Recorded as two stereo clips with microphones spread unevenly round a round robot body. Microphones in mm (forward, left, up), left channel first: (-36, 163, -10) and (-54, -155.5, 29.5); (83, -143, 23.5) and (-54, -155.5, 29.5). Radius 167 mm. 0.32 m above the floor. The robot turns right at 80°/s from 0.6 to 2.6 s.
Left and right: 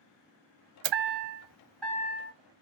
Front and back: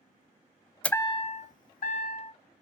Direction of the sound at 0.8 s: 80° right.